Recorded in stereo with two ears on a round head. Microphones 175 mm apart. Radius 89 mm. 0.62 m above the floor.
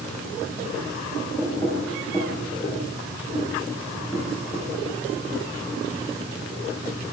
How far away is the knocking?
About 8.5 m.